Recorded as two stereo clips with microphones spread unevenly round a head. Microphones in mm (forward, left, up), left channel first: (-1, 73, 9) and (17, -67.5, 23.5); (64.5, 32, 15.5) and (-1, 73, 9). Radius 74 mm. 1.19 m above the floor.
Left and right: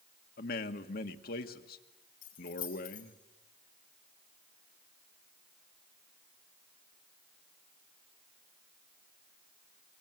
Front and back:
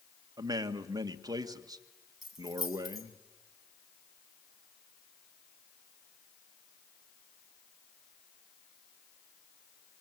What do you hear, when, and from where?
0.4 s a man speaking: 110° left, 1.6 m
2.2 s keys jangling: 60° left, 6.5 m